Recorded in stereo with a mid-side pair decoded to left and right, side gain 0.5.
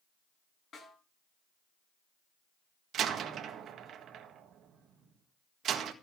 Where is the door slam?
60° right, 1.6 m.